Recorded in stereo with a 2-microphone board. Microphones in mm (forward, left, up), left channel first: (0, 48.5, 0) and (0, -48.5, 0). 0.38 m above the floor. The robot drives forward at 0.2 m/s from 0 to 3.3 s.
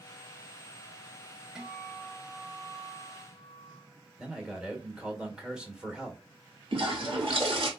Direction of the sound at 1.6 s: 5° right (ahead or behind).